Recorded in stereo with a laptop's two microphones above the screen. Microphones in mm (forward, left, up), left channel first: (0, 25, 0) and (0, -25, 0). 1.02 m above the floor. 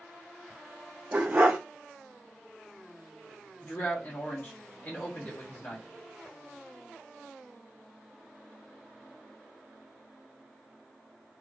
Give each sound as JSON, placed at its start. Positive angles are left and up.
{"t": 1.1, "sound": "a dog barking", "side_deg": -35, "distance_m": 0.6}
{"t": 3.6, "sound": "a man speaking", "side_deg": 40, "distance_m": 1.0}